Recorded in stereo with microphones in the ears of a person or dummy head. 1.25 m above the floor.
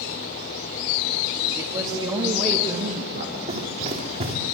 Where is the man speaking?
15° right (ahead or behind), 2 m; by 3.4 s 50° right (ahead or behind), 1.6 m.